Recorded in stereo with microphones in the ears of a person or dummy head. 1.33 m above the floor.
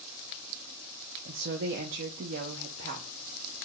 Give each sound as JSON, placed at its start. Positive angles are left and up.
{"t": 1.2, "sound": "a woman speaking", "side_deg": -55, "distance_m": 0.5}